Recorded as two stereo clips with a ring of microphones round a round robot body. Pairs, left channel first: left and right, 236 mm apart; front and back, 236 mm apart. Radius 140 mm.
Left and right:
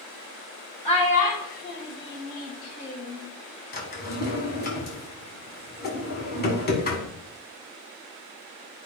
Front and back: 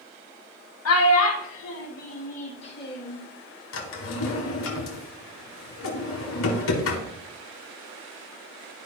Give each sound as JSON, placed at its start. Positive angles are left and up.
{"t": 0.8, "sound": "a child speaking", "azimuth_deg": 20, "distance_m": 2.0}
{"t": 3.7, "sound": "a drawer", "azimuth_deg": 35, "distance_m": 1.6}